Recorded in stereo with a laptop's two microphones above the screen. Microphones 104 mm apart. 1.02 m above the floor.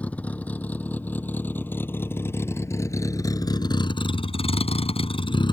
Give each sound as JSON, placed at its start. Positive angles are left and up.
{"t": 0.0, "sound": "a vehicle", "side_deg": 15}